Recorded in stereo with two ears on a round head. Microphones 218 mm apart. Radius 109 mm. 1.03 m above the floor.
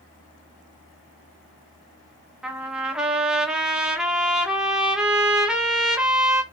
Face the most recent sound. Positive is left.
turn(degrees=-5)  # may be behind; listen again after turning